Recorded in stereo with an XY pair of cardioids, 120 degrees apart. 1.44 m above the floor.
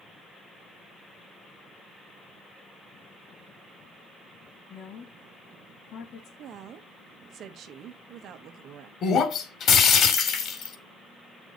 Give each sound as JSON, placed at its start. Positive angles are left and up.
{"t": 4.7, "sound": "a woman speaking", "azimuth_deg": 55, "distance_m": 3.0}
{"t": 6.4, "sound": "a woman speaking", "azimuth_deg": -60, "distance_m": 1.7}
{"t": 9.0, "sound": "breaking glass", "azimuth_deg": 55, "distance_m": 2.5}